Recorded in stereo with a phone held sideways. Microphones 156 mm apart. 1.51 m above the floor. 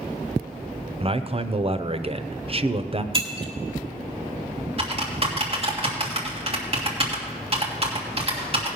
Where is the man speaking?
40° right (ahead or behind), 0.7 m.